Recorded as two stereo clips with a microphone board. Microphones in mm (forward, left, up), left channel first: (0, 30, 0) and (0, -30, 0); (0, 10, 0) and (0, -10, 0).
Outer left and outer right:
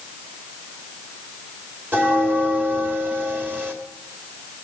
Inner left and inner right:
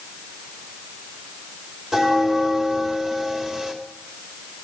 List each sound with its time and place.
1.9 s a bell: 30° right (ahead or behind), 3 m